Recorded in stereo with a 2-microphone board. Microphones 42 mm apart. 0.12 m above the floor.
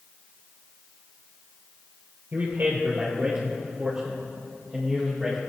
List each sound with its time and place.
2.3 s a man speaking: 45° right (ahead or behind), 2.5 m; by 5.4 s centre (ahead or behind), 4 m